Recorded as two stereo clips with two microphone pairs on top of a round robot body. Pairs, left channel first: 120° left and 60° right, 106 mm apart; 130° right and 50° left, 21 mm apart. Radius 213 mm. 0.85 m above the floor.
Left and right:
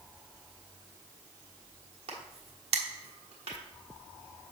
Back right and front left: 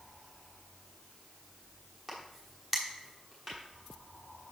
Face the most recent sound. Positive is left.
turn(degrees=-35)